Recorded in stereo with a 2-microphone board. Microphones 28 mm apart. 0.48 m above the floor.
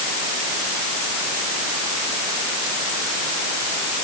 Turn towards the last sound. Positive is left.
No sound to turn to.